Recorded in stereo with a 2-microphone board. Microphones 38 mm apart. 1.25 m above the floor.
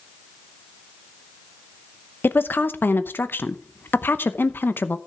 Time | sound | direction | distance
2.2 | a woman speaking | 70° left (ahead or behind) | 0.8 m